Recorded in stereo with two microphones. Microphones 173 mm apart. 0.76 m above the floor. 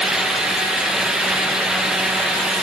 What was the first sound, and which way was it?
Only background noise.